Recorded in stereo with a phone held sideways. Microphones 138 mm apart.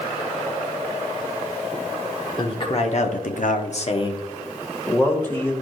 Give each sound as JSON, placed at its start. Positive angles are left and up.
{"t": 2.4, "sound": "a man speaking", "side_deg": 35, "distance_m": 1.3}